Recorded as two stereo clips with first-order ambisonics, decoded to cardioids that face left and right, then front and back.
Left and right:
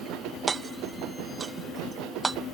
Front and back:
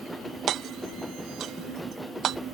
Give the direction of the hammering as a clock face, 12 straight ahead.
5 o'clock.